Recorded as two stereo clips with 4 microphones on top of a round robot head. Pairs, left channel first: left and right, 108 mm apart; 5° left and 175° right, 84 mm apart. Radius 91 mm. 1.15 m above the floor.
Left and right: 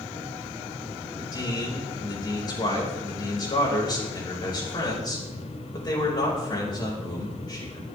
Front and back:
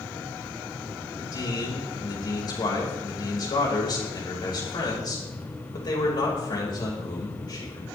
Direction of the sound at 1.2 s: 40° left.